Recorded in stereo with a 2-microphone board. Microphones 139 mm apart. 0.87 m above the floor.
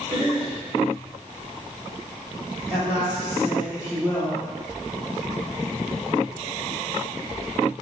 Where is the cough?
40° right (ahead or behind), 1.7 m.